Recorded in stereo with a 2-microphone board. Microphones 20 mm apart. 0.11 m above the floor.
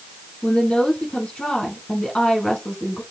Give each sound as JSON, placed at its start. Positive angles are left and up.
{"t": 0.4, "sound": "a woman speaking", "side_deg": 45, "distance_m": 3.5}